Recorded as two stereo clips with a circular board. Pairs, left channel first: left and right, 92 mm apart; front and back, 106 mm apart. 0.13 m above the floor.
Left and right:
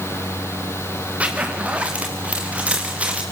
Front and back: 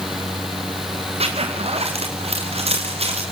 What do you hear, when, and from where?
1.2 s a zipper: 165° right, 3.5 m